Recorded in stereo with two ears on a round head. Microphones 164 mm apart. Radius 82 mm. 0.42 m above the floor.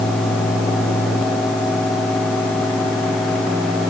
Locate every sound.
Only background noise.